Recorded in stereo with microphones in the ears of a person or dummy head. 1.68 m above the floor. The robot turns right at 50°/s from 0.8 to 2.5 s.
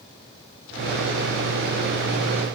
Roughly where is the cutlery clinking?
I don't hear cutlery clinking.